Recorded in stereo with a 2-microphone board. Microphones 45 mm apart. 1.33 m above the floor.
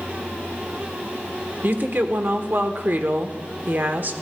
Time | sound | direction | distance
1.6 | a woman speaking | 45° right (ahead or behind) | 1.0 m